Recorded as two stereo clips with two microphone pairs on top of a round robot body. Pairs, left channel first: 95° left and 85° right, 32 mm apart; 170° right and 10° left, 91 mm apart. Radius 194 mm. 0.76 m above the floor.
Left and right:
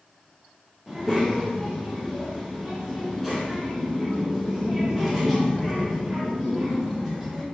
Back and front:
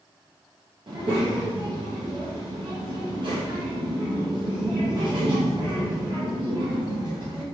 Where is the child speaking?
Straight ahead, 1.3 m.